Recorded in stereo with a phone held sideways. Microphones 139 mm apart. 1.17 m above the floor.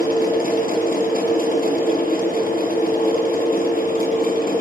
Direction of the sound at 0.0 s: 75° left (ahead or behind).